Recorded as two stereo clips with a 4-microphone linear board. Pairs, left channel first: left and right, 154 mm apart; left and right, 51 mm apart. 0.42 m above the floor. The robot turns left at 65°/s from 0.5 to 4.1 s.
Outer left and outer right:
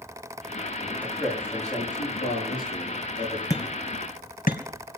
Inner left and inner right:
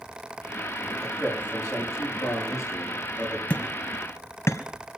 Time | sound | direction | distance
1.0 | a man speaking | 10° left (ahead or behind) | 7.5 m
3.5 | hammering | 20° left (ahead or behind) | 1.9 m